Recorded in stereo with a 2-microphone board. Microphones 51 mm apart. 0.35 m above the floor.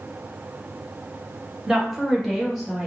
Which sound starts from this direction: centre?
A woman speaking, at 1.7 s.